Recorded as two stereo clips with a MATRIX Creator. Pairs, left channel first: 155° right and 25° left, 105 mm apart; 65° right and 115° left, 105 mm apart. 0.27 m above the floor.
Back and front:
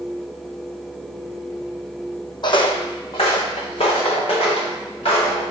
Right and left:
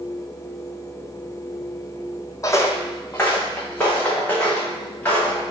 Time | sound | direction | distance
2.4 | footsteps | 125° right | 0.5 m